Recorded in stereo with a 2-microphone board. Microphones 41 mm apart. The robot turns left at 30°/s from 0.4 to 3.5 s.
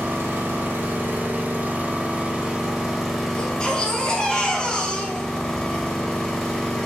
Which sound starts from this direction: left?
A baby crying, at 3.4 s.